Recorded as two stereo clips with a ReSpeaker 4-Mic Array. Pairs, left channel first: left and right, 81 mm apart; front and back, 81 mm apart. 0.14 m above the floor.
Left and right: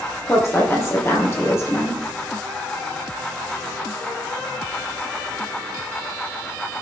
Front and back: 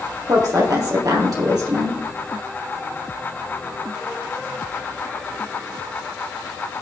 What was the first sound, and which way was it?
A woman speaking, 145° left.